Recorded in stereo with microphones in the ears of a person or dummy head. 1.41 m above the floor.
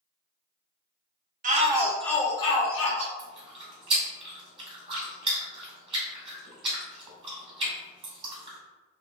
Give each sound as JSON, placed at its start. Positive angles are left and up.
{"t": 1.4, "sound": "a shout", "side_deg": -45, "distance_m": 0.6}
{"t": 3.2, "sound": "chewing", "side_deg": -30, "distance_m": 1.7}